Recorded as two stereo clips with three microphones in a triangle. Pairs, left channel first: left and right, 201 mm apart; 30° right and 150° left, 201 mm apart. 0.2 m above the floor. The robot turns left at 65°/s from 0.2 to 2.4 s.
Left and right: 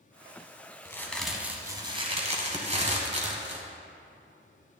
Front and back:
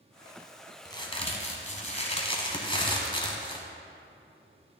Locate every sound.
0.8 s a crack: 25° left, 1.5 m; by 3.6 s 75° right, 1.5 m